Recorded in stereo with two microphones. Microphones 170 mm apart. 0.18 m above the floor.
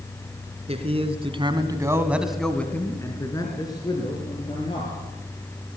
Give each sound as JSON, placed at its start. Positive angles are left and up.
{"t": 0.7, "sound": "a man speaking", "side_deg": -35, "distance_m": 2.5}